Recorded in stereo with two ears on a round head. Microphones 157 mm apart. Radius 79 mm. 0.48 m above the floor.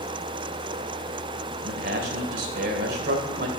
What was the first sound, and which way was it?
A man speaking, 60° right (ahead or behind).